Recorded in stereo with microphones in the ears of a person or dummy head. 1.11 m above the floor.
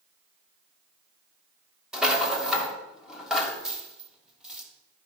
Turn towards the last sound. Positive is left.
turn(degrees=5)  # may be behind; listen again after turning